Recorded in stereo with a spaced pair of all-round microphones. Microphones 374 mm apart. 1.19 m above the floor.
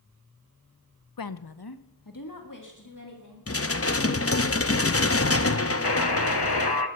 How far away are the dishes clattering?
About 0.7 m.